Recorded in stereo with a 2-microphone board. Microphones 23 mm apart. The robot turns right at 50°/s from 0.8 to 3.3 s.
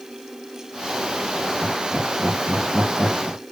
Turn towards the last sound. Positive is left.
turn(degrees=-35)  # may be behind; listen again after turning